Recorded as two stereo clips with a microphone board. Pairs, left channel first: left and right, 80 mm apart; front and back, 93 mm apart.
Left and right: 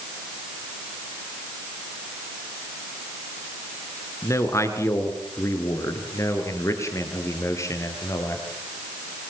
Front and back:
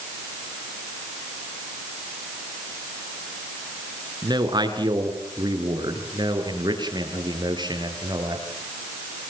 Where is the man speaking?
140° left, 4 m.